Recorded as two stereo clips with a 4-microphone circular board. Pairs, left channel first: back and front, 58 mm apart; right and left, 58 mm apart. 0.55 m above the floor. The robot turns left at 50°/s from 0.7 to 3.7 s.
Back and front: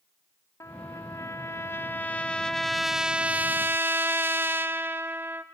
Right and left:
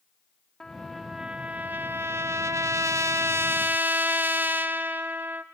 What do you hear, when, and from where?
0.6 s a trumpet: 170° right, 0.5 m; by 5.4 s 40° left, 0.5 m